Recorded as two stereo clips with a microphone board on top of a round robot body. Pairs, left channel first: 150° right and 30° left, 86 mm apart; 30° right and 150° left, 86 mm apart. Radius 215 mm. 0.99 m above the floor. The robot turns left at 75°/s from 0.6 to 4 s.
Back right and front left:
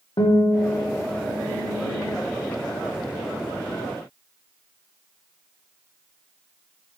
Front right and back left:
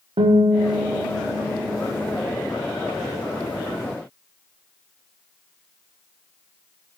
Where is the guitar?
165° left, 1.2 m; by 2.2 s 50° left, 1.2 m.